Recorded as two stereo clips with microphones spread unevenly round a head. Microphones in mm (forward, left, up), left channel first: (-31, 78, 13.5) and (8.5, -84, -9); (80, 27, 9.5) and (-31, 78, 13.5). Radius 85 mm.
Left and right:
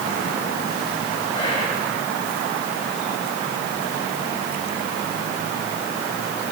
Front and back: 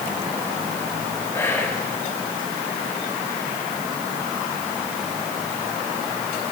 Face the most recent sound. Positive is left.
turn(degrees=40)